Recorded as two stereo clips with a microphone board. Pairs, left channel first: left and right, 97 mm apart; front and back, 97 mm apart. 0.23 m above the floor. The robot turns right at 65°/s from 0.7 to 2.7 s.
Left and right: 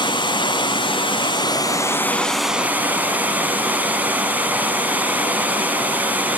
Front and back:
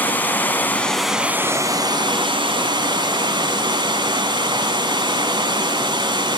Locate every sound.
0.0 s running water: 70° left, 1.2 m; by 6.4 s 160° right, 1.2 m